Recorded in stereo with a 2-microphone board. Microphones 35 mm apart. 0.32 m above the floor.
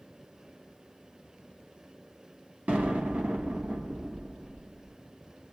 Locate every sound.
2.7 s an explosion: 60° right (ahead or behind), 1.3 m